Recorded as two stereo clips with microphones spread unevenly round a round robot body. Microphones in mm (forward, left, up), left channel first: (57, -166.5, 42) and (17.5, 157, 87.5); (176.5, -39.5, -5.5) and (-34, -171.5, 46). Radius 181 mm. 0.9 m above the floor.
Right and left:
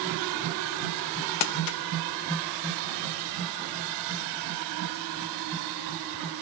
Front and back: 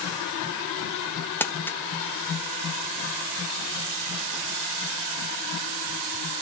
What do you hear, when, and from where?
1.4 s crumpling: 45° right, 0.6 m